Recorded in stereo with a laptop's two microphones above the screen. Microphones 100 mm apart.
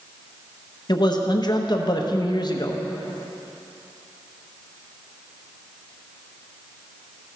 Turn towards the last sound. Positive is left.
turn(degrees=45)  # may be behind; listen again after turning